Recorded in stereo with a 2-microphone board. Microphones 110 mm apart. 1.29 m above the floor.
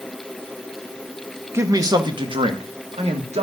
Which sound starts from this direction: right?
A man speaking, at 1.5 s.